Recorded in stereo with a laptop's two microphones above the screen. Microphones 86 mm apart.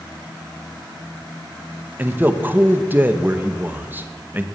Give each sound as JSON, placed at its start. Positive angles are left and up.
{"t": 2.0, "sound": "a man speaking", "side_deg": -20, "distance_m": 0.7}